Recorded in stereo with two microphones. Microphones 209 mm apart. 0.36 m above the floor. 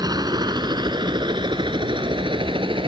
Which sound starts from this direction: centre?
A helicopter, at 0.0 s.